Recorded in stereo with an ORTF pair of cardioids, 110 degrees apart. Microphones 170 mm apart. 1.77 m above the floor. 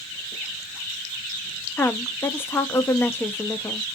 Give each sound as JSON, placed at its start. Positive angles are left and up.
{"t": 1.8, "sound": "a woman speaking", "azimuth_deg": 15, "distance_m": 0.6}